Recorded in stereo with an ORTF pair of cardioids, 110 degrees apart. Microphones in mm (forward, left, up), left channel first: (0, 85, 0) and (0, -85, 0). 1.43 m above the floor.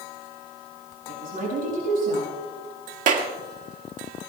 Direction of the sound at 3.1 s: 50° right.